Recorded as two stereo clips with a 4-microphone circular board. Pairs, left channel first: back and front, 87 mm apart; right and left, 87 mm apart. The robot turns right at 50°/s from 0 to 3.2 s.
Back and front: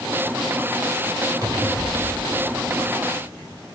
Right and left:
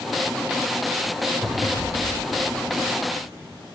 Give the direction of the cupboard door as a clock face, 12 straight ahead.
12 o'clock.